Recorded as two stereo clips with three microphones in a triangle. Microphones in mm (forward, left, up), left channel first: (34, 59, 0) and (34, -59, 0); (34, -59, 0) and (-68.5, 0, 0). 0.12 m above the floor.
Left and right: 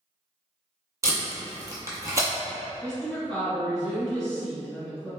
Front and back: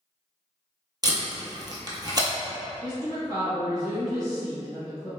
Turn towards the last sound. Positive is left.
turn(degrees=165)